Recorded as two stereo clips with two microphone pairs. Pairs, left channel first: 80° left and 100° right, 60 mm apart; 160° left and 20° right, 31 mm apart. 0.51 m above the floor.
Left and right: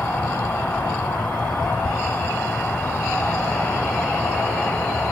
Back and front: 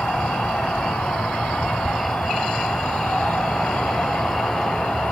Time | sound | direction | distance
0.0 | an insect | 135° left | 7 m
1.8 | a thud | 75° left | 3 m